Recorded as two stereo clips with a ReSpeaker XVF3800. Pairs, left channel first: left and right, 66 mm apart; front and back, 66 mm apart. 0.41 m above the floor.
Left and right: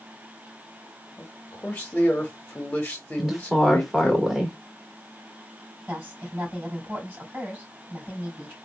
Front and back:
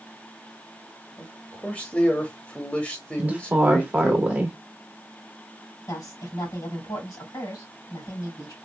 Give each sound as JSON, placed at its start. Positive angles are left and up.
{"t": 1.2, "sound": "a man speaking", "azimuth_deg": 50, "distance_m": 0.9}
{"t": 3.2, "sound": "a woman speaking", "azimuth_deg": -170, "distance_m": 1.1}
{"t": 5.9, "sound": "a woman speaking", "azimuth_deg": -30, "distance_m": 3.0}